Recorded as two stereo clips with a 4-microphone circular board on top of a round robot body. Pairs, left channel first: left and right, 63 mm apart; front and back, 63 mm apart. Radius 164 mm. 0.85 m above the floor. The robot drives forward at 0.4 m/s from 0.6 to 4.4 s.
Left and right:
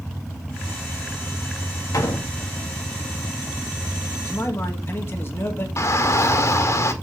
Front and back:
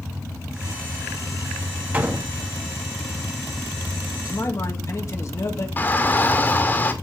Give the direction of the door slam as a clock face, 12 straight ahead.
8 o'clock.